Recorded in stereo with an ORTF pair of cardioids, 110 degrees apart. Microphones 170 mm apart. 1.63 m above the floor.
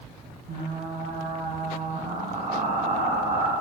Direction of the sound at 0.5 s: 50° right.